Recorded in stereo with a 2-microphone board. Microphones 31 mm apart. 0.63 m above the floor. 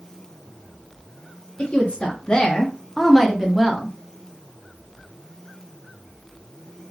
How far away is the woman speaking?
About 0.8 m.